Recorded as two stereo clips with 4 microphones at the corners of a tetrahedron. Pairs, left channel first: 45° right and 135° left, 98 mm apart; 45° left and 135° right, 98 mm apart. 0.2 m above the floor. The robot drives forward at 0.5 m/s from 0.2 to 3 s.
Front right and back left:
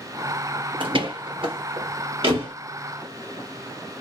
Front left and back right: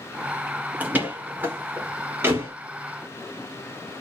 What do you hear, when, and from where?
0.8 s a door slam: 155° left, 1.9 m; by 2.5 s 160° left, 2.5 m